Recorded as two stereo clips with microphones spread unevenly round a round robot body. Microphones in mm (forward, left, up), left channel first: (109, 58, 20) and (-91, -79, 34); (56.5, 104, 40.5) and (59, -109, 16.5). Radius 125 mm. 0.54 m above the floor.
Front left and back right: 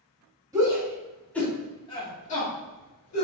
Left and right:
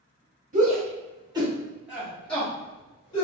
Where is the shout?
70° right, 1.5 m; by 3.2 s 25° left, 1.7 m.